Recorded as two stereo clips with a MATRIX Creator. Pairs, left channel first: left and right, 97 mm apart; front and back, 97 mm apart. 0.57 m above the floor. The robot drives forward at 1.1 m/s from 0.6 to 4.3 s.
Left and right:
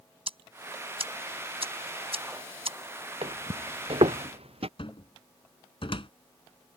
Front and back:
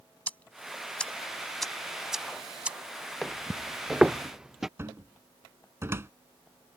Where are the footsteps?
85° right; by 4.7 s 95° right.